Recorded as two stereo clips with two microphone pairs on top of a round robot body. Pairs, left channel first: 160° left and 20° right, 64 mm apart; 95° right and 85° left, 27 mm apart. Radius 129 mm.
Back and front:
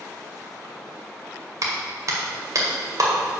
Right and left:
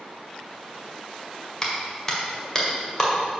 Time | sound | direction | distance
1.6 | a clap | 35° right | 2 m